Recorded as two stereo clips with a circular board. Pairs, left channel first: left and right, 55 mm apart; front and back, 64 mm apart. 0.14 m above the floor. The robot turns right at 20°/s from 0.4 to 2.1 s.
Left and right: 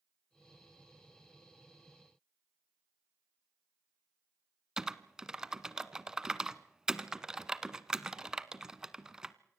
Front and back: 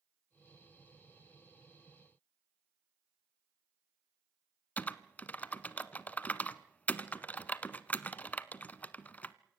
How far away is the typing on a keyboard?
About 0.8 m.